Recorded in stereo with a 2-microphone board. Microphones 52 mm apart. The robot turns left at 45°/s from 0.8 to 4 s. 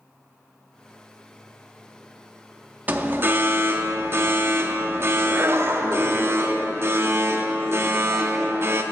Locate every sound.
2.9 s an alarm: 45° right, 0.6 m; by 8.8 s 95° right, 0.6 m